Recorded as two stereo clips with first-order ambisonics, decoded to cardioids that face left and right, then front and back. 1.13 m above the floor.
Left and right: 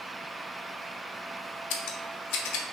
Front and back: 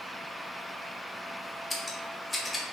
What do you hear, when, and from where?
1.7 s scissors: 80° left, 0.7 m